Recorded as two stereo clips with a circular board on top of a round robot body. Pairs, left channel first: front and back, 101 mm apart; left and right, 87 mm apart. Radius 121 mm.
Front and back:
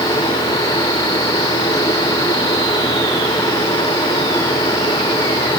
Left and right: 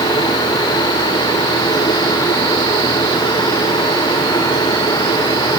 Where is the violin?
No violin in this recording.